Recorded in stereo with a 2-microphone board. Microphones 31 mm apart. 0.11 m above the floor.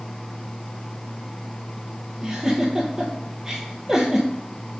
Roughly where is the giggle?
Right.